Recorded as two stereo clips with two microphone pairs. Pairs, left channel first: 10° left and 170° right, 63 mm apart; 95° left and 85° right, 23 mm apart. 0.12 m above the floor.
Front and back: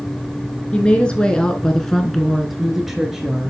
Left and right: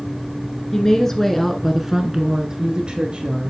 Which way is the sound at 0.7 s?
65° left.